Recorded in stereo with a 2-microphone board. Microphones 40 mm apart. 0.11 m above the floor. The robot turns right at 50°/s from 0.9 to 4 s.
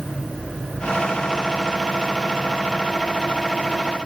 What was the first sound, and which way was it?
Only background noise.